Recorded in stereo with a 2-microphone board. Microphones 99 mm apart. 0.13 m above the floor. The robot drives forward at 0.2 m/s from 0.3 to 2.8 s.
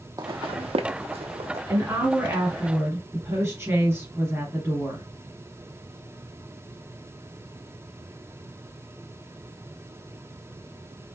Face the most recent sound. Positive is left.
turn(degrees=-25)  # may be behind; listen again after turning